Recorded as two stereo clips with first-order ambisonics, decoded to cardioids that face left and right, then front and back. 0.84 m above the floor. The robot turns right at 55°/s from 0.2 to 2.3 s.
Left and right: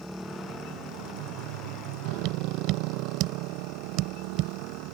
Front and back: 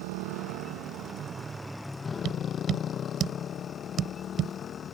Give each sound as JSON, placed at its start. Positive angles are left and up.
{"t": 0.0, "sound": "a motorcycle", "azimuth_deg": 180}
{"t": 2.2, "sound": "tapping", "azimuth_deg": -125}